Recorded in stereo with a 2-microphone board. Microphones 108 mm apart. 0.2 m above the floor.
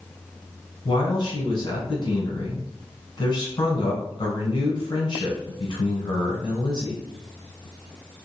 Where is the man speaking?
45° left (ahead or behind), 1.4 m.